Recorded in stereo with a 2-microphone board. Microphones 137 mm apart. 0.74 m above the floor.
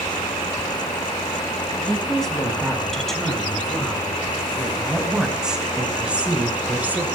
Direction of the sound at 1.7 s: 5° left (ahead or behind).